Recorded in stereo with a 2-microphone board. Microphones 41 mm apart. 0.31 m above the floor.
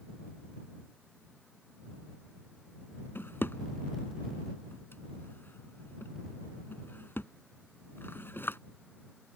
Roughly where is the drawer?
Left.